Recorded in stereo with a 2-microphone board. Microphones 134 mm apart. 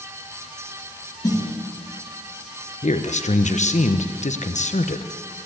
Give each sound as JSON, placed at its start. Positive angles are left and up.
{"t": 1.2, "sound": "a snare drum", "side_deg": 30, "distance_m": 3.0}
{"t": 2.8, "sound": "a man speaking", "side_deg": 60, "distance_m": 0.9}